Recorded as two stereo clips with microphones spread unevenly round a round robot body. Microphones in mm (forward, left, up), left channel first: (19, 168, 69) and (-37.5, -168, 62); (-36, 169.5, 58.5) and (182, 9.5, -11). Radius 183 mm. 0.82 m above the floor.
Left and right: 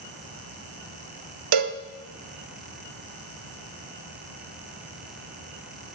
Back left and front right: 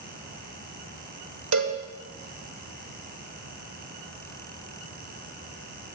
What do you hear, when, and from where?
1.5 s a cowbell: 90° right, 0.7 m